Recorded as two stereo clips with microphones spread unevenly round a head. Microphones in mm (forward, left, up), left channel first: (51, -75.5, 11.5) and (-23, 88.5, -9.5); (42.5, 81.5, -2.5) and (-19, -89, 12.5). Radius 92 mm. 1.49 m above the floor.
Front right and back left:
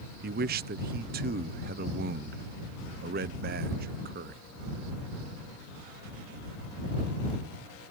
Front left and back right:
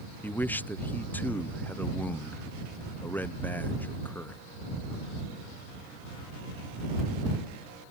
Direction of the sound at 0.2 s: 150° left.